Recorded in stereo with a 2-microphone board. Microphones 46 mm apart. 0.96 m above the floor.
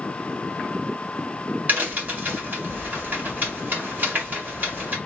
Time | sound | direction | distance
1.7 | a crack | 45° right (ahead or behind) | 1.8 m